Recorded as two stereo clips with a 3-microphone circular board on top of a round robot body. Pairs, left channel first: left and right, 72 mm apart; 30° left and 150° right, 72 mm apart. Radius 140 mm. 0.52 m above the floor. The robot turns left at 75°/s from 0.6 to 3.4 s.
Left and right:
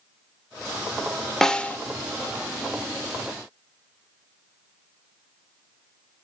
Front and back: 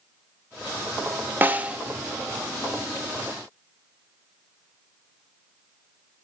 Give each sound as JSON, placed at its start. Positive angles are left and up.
{"t": 1.4, "sound": "a snare drum", "azimuth_deg": 170, "distance_m": 0.9}